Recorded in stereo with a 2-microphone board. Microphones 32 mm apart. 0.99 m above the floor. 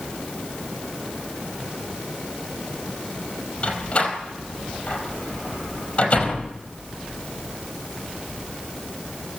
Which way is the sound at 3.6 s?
40° left (ahead or behind).